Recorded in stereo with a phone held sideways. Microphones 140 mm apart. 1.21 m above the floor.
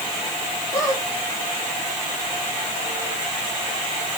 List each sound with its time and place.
0.7 s a squeak: 25° left (ahead or behind), 7 m